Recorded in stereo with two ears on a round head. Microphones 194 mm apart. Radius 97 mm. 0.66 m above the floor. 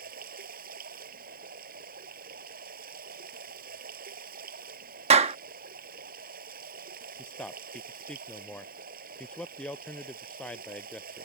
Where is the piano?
No piano in this recording.